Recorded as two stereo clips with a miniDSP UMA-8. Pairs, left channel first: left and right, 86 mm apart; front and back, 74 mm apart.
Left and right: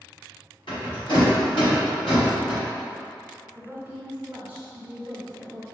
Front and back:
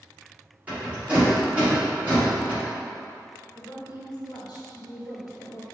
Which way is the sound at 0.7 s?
110° left.